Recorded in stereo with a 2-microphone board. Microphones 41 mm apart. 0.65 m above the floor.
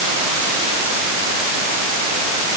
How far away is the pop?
I don't hear a pop.